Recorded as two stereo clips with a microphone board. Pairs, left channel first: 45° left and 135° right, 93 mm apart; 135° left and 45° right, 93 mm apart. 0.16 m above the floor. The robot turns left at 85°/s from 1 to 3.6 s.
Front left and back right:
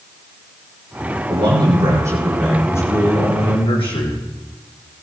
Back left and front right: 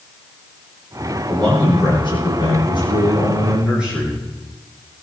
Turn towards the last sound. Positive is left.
turn(degrees=35)